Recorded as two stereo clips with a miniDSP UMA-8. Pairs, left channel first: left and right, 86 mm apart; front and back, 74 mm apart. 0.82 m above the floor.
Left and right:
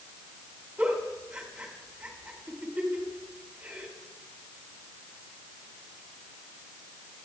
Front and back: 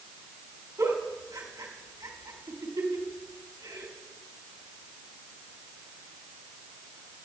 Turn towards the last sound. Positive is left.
turn(degrees=-165)